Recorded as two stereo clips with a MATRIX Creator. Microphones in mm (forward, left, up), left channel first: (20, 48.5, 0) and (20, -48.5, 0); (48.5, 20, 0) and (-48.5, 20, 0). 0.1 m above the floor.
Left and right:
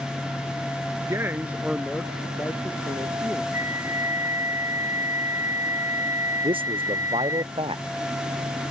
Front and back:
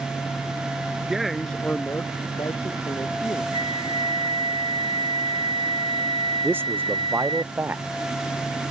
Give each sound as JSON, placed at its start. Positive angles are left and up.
{"t": 1.1, "sound": "a man speaking", "azimuth_deg": -105}
{"t": 3.5, "sound": "a flute", "azimuth_deg": -150}
{"t": 6.4, "sound": "a man speaking", "azimuth_deg": -110}